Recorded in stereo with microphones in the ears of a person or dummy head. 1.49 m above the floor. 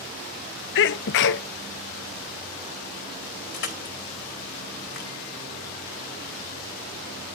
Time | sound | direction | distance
0.8 | a sneeze | 60° left (ahead or behind) | 0.7 m
3.5 | crushing | 55° left (ahead or behind) | 2.0 m